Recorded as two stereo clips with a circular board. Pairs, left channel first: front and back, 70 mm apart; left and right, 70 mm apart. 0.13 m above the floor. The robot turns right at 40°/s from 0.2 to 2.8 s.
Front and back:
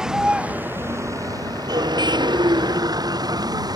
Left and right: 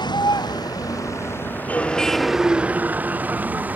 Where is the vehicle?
95° left; by 3.8 s 160° right.